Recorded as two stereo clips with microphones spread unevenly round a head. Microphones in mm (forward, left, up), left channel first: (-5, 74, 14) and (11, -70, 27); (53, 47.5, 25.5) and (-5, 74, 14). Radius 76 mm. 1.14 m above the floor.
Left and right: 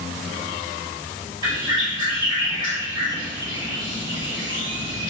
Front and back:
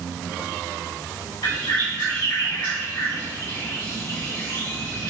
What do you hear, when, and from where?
1.4 s a bird: 25° right, 1.9 m